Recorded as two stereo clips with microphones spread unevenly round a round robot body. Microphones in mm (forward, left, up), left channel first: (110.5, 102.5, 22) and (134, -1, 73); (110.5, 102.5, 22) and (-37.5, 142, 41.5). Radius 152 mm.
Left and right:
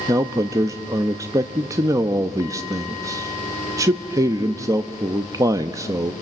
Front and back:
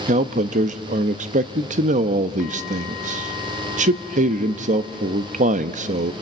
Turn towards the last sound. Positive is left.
turn(degrees=-160)